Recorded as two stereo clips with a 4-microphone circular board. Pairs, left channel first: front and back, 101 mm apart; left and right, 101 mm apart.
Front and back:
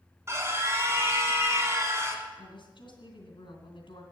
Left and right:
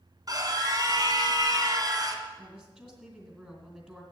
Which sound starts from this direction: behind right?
A scream, at 0.3 s.